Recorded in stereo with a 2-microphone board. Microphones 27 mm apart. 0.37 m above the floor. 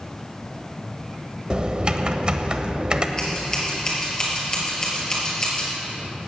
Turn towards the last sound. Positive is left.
turn(degrees=25)  # may be behind; listen again after turning